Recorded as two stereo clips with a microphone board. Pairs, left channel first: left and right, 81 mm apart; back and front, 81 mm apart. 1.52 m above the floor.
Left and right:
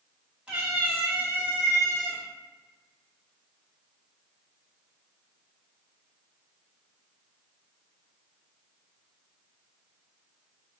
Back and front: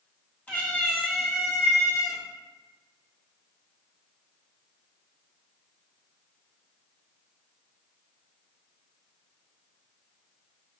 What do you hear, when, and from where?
0.5 s a cat meowing: 140° right, 1.4 m; by 2.2 s 70° right, 1.7 m